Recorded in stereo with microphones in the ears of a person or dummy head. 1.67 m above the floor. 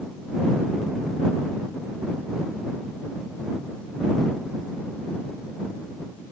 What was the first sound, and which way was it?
Only background noise.